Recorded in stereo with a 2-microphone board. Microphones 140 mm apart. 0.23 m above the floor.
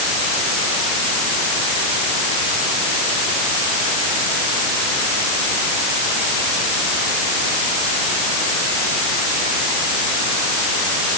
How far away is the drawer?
I don't hear a drawer.